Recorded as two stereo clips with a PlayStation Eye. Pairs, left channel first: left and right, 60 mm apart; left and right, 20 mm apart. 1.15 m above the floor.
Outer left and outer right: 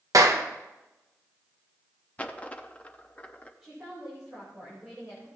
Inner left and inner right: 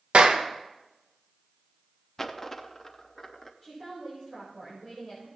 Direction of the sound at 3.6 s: 5° right (ahead or behind).